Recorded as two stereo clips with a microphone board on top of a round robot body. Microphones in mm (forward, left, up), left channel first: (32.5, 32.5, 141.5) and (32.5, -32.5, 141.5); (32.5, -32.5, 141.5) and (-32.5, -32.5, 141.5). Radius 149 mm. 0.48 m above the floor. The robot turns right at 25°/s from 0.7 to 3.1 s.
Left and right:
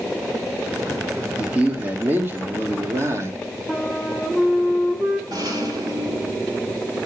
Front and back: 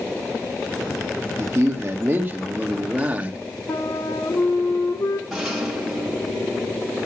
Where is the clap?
I don't hear a clap.